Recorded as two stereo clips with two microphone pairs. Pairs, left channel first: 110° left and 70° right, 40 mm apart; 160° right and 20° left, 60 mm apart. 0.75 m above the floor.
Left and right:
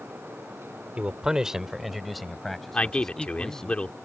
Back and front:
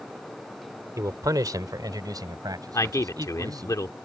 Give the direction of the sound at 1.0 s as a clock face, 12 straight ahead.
12 o'clock.